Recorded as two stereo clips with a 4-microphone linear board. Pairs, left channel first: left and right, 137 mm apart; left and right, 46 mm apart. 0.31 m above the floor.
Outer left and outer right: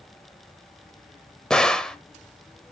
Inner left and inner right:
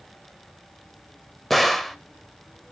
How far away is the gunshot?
About 1.3 m.